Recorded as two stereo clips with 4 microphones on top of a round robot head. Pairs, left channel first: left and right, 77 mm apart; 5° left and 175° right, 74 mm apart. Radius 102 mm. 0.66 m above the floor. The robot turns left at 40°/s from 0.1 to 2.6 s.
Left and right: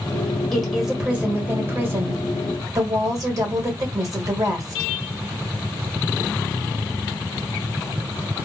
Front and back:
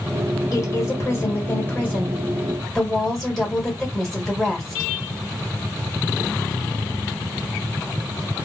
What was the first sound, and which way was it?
A woman speaking, 5° left.